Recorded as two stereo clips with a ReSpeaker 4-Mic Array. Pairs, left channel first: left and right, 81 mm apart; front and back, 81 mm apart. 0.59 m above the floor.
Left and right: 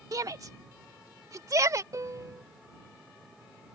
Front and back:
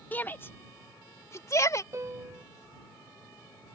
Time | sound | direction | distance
0.1 | a shout | 60° right | ?
1.9 | a piano | 135° right | ?